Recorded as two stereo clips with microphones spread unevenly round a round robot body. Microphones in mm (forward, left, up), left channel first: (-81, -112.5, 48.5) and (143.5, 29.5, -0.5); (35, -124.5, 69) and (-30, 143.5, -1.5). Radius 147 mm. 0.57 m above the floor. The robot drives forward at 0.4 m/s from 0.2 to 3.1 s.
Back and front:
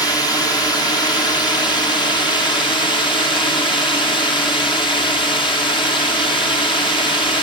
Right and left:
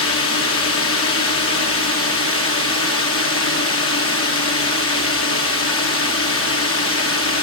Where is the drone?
65° right; by 7.5 s 70° right.